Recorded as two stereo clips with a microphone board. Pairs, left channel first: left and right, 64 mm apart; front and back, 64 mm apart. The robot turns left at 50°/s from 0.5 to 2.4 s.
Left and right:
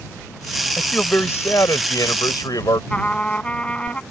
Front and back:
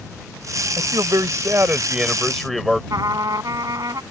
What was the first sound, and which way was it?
A man speaking, 170° left.